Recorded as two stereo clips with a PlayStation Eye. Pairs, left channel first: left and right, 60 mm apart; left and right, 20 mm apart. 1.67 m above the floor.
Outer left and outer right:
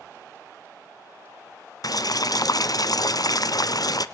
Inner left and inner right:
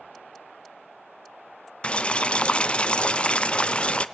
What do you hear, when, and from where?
1.8 s boiling: 80° left, 0.6 m